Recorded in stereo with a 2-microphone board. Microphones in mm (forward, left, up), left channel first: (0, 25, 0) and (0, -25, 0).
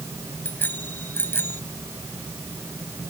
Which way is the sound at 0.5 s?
40° left (ahead or behind).